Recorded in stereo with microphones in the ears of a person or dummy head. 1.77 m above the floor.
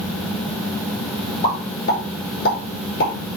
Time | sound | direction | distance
1.4 | a pop | 60° left (ahead or behind) | 5.5 m